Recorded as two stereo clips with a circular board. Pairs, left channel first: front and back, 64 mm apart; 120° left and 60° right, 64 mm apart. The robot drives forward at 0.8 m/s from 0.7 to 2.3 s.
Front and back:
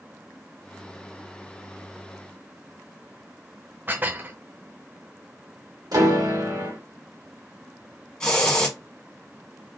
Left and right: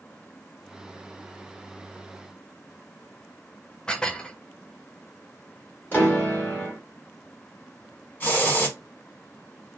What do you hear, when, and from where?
3.9 s dishes clattering: 175° right, 0.6 m
5.9 s a piano: 175° right, 1.9 m
8.2 s a hiss: 70° left, 1.5 m